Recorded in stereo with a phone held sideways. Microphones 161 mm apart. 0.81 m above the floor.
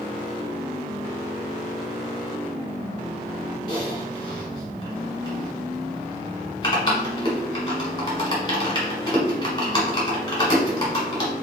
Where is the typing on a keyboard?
30° left (ahead or behind), 1.7 m.